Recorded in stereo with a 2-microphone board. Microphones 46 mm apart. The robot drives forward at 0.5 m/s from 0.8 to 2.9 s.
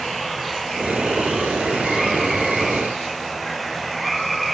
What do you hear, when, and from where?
0.0 s running water: centre (ahead or behind)